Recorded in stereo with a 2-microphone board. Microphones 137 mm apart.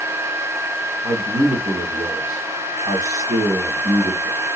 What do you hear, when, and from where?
1.0 s a man speaking: 50° right (ahead or behind), 2.5 m